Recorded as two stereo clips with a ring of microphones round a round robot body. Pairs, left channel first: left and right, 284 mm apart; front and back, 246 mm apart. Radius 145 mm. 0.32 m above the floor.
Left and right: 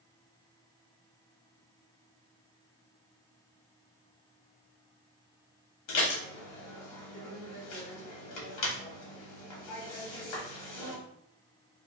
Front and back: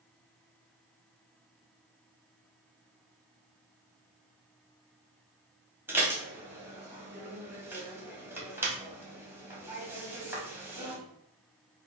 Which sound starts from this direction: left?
Dishes clattering, at 5.9 s.